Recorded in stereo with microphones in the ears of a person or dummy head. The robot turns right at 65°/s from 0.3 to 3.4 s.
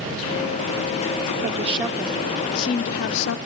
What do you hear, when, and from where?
1.4 s a woman speaking: 45° right, 0.5 m; by 3.4 s 80° left, 0.5 m